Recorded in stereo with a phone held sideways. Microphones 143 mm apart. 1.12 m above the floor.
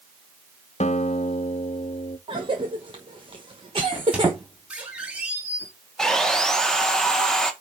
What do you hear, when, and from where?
0.8 s a guitar: 55° left (ahead or behind), 0.7 m
2.3 s a cough: 40° right (ahead or behind), 1.1 m
3.9 s a squeak: 10° right (ahead or behind), 2.5 m
6.0 s sawing: 5° left (ahead or behind), 1.3 m